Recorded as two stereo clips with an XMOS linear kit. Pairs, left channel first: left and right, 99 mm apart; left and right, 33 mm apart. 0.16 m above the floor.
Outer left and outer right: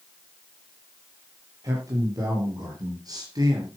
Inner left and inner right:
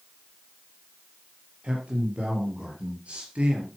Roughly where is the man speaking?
Right.